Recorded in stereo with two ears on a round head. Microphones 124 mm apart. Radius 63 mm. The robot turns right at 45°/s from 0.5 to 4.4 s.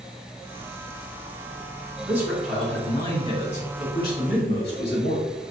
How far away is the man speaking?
About 2.5 m.